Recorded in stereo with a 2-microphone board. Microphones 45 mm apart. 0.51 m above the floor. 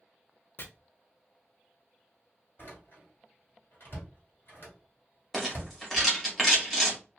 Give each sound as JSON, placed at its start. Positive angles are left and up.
{"t": 0.6, "sound": "chopping", "side_deg": 55, "distance_m": 0.7}
{"t": 2.6, "sound": "a door slam", "side_deg": 55, "distance_m": 1.7}
{"t": 5.3, "sound": "a rattle", "side_deg": 10, "distance_m": 1.4}